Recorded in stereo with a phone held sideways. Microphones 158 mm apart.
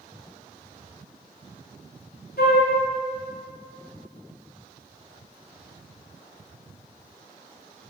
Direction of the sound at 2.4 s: 80° left.